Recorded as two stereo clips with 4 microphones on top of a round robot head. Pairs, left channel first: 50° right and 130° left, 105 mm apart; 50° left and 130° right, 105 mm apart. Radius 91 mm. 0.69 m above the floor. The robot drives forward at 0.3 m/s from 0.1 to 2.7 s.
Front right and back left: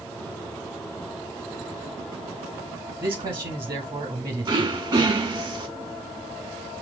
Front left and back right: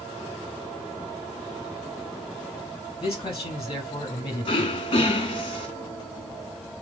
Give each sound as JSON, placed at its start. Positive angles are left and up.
{"t": 3.0, "sound": "a man speaking", "azimuth_deg": 100, "distance_m": 1.6}
{"t": 4.5, "sound": "throat clearing", "azimuth_deg": 85, "distance_m": 1.2}